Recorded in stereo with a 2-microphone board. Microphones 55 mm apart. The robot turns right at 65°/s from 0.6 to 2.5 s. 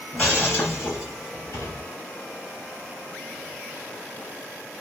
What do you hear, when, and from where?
0.1 s breaking glass: 30° left, 3 m; by 1.8 s 110° left, 3 m